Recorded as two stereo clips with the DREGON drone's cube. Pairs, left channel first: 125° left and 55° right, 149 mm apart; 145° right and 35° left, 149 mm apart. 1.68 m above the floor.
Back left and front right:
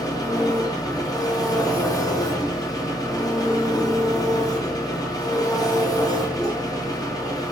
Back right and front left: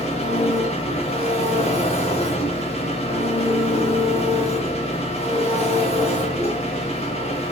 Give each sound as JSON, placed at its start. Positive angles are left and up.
{"t": 0.0, "sound": "an engine running", "azimuth_deg": 180, "distance_m": 0.9}